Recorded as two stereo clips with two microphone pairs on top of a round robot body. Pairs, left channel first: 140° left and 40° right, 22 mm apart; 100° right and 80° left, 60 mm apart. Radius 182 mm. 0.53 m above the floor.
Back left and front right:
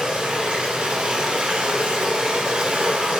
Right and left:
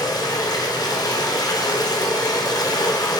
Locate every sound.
0.0 s running water: 85° right, 1.0 m